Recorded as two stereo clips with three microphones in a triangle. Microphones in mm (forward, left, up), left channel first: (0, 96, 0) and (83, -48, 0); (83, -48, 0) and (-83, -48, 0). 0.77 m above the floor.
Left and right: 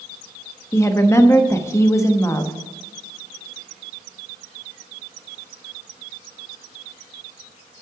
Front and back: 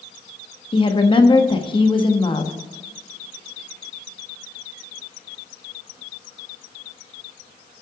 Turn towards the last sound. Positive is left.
turn(degrees=50)